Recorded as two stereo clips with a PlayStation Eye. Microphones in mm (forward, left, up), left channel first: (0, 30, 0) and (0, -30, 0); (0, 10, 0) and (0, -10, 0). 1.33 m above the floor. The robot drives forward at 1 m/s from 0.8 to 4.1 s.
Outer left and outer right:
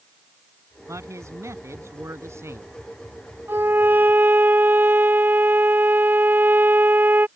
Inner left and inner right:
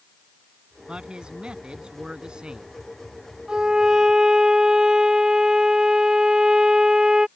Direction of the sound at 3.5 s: 40° right (ahead or behind).